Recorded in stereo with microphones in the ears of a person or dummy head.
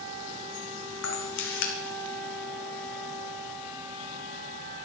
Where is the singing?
I don't hear singing.